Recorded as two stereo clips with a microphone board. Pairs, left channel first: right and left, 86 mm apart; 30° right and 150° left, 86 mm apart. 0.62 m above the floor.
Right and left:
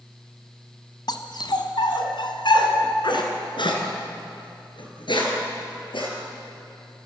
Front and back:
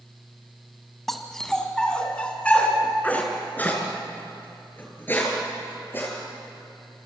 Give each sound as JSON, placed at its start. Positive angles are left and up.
{"t": 1.1, "sound": "a dog barking", "azimuth_deg": -120, "distance_m": 2.0}